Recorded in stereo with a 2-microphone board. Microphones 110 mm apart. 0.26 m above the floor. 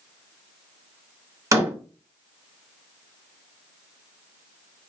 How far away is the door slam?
About 1.3 m.